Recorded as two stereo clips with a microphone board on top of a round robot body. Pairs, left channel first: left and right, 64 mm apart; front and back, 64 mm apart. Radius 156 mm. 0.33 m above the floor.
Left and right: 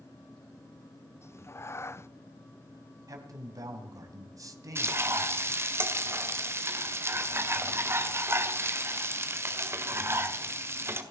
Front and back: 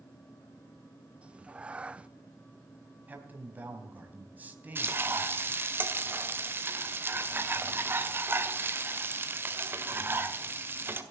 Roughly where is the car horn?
I don't hear a car horn.